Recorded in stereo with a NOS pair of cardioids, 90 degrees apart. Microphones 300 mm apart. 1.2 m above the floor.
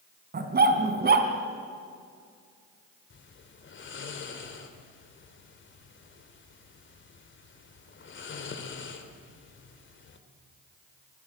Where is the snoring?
40° left, 3 m.